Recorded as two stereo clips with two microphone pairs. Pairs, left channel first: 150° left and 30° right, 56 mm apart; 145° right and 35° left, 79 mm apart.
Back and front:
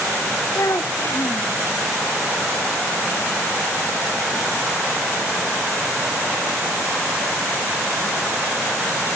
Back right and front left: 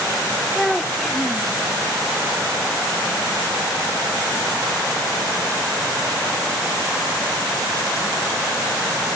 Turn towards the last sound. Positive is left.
turn(degrees=125)